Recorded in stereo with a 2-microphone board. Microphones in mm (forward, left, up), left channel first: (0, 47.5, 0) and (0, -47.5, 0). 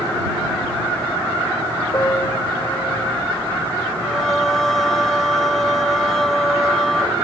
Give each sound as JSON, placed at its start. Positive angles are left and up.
{"t": 1.9, "sound": "a piano", "side_deg": 25}
{"t": 4.0, "sound": "singing", "side_deg": 5}